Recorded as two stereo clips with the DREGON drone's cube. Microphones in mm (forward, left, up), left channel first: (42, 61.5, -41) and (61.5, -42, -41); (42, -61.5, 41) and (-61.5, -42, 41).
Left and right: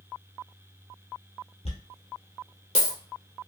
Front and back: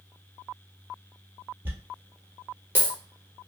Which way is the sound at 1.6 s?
100° left.